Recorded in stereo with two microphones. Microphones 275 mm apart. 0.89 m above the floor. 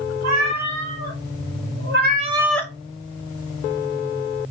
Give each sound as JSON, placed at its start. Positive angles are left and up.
{"t": 0.2, "sound": "a cat meowing", "side_deg": -80, "distance_m": 2.5}